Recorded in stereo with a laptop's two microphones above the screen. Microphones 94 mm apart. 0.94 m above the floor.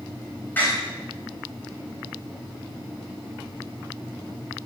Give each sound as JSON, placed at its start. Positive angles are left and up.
{"t": 0.6, "sound": "a door slam", "side_deg": 20, "distance_m": 4.0}